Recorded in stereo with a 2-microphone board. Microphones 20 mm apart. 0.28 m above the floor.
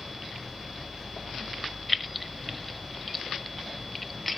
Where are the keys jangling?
Centre (ahead or behind), 0.7 m.